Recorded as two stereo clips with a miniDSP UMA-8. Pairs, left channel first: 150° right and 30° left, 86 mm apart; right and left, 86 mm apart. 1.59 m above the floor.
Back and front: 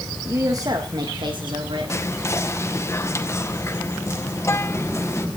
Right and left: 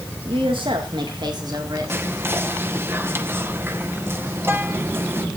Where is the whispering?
155° left, 1.8 m.